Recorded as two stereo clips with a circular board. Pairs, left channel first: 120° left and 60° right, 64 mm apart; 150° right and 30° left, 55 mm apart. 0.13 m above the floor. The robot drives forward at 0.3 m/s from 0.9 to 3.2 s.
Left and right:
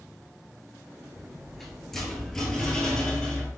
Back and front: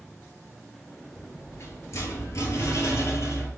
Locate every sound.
1.1 s a rattle: 145° right, 0.7 m; by 3.5 s 165° right, 1.2 m